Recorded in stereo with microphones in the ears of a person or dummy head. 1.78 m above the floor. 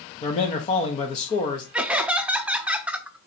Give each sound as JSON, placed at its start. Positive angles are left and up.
{"t": 0.2, "sound": "a man speaking", "side_deg": 35, "distance_m": 0.9}
{"t": 1.7, "sound": "laughter", "side_deg": -5, "distance_m": 0.6}